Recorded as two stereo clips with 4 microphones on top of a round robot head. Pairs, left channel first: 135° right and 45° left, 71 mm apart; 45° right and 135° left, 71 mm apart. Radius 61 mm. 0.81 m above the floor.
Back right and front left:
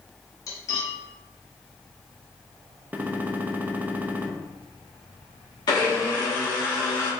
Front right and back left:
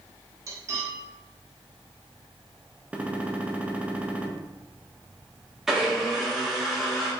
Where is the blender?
140° right, 2.0 m.